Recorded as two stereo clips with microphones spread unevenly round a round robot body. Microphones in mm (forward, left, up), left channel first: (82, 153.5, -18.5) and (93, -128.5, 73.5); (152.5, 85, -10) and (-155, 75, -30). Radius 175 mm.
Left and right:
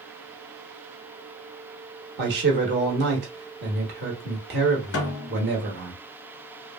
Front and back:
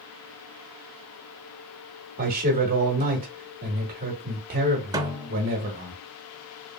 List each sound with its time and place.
2.2 s a man speaking: 145° right, 1.0 m
4.9 s a snare drum: 110° left, 0.7 m